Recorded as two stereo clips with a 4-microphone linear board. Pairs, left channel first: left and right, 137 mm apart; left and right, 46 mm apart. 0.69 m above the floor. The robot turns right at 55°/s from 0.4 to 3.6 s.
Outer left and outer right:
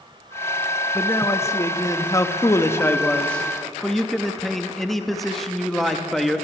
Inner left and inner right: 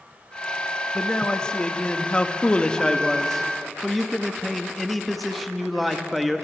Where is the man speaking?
10° left (ahead or behind), 0.7 m; by 6.5 s centre (ahead or behind), 0.7 m.